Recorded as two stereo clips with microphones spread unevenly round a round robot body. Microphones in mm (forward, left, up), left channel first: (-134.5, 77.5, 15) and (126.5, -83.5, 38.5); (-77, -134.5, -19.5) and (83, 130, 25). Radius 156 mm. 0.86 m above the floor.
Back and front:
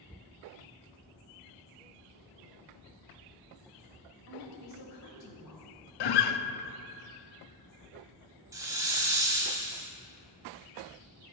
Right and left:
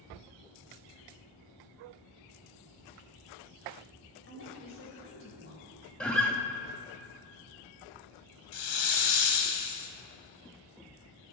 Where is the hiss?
110° right, 1.7 m.